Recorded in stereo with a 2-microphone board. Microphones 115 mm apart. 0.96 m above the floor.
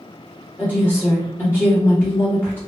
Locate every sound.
0.6 s a woman speaking: 15° left (ahead or behind), 1.1 m